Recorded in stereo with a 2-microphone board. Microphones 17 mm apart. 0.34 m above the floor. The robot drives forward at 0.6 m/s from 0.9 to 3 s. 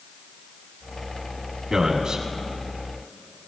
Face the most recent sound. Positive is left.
turn(degrees=-65)  # may be behind; listen again after turning